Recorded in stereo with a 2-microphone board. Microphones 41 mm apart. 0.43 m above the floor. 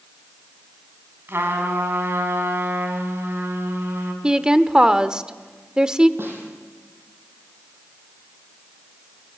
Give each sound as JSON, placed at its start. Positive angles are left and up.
{"t": 1.3, "sound": "a trumpet", "side_deg": -65, "distance_m": 4.5}
{"t": 4.2, "sound": "a woman speaking", "side_deg": -20, "distance_m": 1.0}
{"t": 6.2, "sound": "a snare drum", "side_deg": -60, "distance_m": 6.5}